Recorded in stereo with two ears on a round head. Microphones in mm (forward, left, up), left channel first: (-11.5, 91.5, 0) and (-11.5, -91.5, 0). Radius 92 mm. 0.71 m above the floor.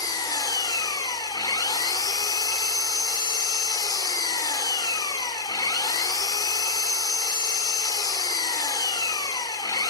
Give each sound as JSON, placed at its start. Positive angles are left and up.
{"t": 0.0, "sound": "an engine running", "side_deg": 20, "distance_m": 1.5}